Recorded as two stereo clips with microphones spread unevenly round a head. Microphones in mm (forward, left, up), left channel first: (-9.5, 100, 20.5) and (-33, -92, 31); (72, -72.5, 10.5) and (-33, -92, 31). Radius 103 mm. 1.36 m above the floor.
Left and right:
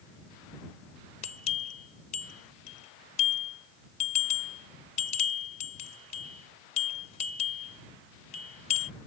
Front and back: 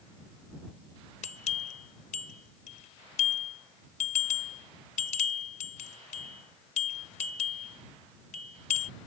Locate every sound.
1.2 s a bell: 25° left